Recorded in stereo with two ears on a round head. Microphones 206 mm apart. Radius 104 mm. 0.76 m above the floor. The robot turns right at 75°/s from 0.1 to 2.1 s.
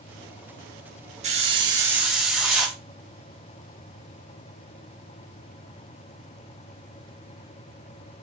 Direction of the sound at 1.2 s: 65° right.